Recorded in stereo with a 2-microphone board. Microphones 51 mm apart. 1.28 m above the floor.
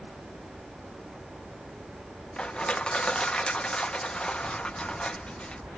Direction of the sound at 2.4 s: 15° left (ahead or behind).